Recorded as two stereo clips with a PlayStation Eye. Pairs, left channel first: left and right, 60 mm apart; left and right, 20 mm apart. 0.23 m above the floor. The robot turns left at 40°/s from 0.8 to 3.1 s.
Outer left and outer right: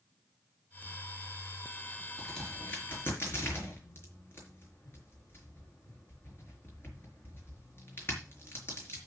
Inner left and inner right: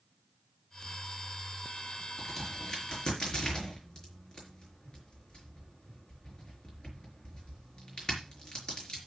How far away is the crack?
About 5 m.